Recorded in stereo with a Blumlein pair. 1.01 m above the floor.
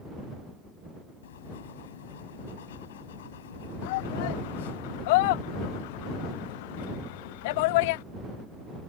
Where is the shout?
50° left.